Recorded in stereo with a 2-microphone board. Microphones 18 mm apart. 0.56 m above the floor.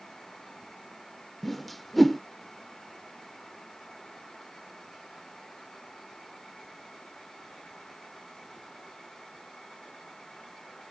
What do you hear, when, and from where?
1.4 s a whoosh: 5° left (ahead or behind)